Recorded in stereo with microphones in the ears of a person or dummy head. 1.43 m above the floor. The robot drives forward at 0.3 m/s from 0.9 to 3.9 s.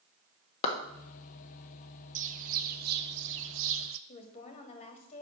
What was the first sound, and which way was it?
A clap, 35° left (ahead or behind).